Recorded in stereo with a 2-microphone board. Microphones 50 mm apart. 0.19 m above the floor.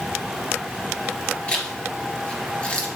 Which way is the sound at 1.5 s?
20° left (ahead or behind).